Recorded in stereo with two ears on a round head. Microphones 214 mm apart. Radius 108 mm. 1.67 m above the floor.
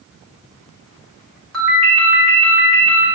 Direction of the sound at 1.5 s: Centre (ahead or behind).